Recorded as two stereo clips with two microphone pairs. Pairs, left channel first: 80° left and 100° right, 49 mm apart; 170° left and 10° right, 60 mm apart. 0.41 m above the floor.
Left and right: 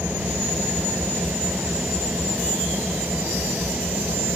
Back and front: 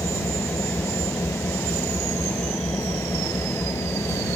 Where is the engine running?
155° right.